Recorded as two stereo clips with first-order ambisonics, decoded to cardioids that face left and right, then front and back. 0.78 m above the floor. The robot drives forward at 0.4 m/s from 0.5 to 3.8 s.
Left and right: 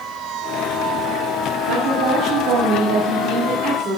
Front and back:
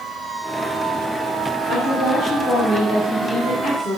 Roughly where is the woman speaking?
Right.